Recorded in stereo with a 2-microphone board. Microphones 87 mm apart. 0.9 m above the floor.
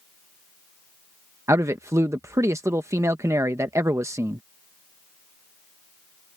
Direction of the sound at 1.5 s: 35° right (ahead or behind).